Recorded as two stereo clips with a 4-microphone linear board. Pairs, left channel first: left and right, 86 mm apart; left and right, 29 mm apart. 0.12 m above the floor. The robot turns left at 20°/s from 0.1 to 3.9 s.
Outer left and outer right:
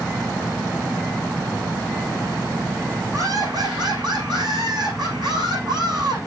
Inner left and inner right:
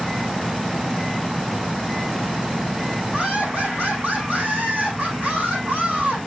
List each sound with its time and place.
3.1 s laughter: 45° right (ahead or behind), 7 m; by 6.2 s 60° right (ahead or behind), 7 m